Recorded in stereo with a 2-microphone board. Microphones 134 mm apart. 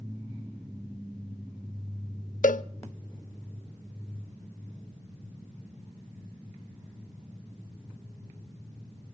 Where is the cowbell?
70° left (ahead or behind), 0.8 m.